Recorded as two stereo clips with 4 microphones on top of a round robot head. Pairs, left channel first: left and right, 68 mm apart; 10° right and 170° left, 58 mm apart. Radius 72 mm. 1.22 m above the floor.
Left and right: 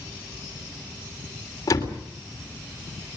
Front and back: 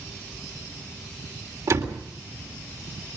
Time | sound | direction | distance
1.7 | a door slam | 135° left | 3.5 m